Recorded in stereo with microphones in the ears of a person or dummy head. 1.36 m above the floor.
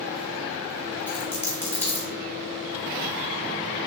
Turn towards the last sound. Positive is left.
turn(degrees=5)  # may be behind; listen again after turning